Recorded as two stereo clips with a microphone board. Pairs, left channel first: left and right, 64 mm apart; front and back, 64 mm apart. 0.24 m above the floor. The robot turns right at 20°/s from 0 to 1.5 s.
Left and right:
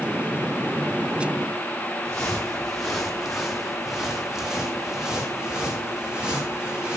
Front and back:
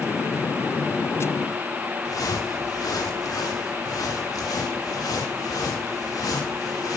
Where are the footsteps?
10° left, 2 m; by 7.0 s 20° right, 4.5 m.